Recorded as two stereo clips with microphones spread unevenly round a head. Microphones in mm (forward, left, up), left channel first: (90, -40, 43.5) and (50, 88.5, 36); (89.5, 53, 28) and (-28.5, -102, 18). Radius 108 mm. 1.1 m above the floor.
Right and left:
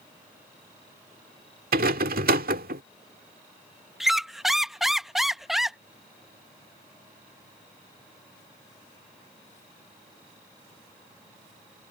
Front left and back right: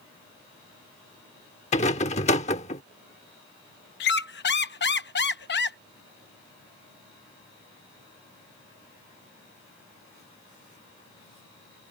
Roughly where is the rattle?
Left.